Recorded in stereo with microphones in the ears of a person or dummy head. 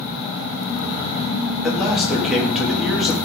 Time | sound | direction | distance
1.6 | a man speaking | centre (ahead or behind) | 2.5 m